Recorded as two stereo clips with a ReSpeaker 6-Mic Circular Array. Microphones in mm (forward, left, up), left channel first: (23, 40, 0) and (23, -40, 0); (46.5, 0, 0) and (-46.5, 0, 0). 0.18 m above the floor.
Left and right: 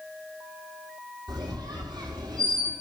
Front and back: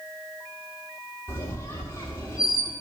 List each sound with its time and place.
1.3 s a squeak: 60° right, 2 m